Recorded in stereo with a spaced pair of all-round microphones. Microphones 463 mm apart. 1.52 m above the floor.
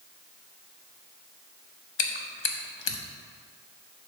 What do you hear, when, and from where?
2.0 s chewing: 80° left, 0.6 m